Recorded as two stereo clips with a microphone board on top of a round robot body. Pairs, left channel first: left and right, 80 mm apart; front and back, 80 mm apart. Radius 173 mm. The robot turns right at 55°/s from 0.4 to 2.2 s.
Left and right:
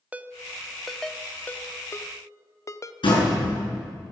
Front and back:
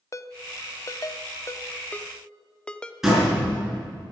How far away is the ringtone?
About 0.8 m.